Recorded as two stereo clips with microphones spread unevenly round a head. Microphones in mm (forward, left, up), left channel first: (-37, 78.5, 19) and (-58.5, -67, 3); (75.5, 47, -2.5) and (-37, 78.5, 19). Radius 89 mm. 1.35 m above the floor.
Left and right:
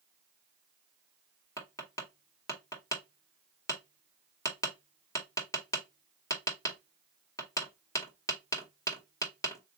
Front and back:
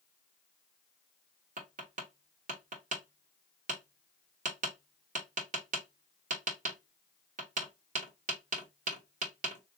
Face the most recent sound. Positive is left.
turn(degrees=150)